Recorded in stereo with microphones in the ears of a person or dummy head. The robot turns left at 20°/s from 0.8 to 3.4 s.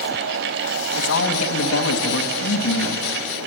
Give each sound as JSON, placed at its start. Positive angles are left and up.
{"t": 1.0, "sound": "a man speaking", "azimuth_deg": 110, "distance_m": 3.0}